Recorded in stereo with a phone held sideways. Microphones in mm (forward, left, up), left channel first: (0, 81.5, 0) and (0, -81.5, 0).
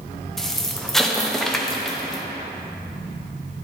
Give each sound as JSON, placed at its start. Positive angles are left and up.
{"t": 0.4, "sound": "an explosion", "side_deg": 0, "distance_m": 0.7}